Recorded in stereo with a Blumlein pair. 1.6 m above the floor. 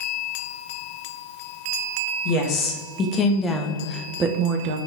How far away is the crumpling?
I don't hear crumpling.